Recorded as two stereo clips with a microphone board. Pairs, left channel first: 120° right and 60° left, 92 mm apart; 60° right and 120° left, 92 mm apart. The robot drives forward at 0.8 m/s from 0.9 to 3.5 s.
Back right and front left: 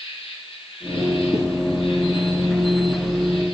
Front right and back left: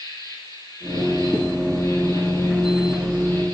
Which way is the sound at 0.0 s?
110° right.